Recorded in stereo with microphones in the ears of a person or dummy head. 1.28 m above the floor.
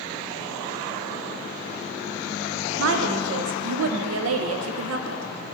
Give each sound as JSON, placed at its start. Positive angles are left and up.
{"t": 2.8, "sound": "a woman speaking", "side_deg": -85, "distance_m": 0.7}